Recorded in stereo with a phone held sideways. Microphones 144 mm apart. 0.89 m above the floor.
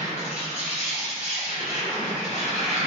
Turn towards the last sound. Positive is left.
turn(degrees=55)  # may be behind; listen again after turning